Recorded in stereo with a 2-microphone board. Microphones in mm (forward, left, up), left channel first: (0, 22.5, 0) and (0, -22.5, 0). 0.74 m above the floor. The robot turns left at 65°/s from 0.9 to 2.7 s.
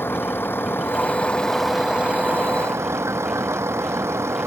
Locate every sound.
0.0 s a vehicle: 50° left; by 4.5 s 70° right